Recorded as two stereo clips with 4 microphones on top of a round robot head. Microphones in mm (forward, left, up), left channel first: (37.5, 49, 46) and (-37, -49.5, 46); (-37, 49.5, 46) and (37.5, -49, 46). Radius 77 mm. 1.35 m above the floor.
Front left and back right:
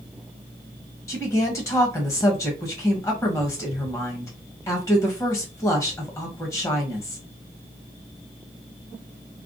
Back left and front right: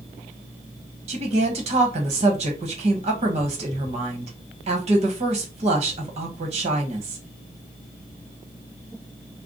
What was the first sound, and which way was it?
A woman speaking, 15° right.